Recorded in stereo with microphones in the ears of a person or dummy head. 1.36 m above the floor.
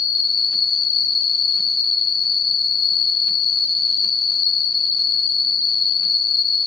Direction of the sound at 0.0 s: 45° left (ahead or behind).